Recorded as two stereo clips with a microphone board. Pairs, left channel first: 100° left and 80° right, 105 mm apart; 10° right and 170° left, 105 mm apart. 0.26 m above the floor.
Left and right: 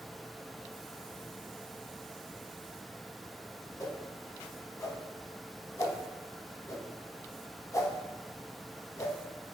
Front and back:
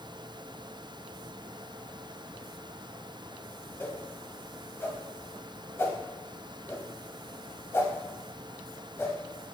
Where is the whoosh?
50° left, 0.6 m.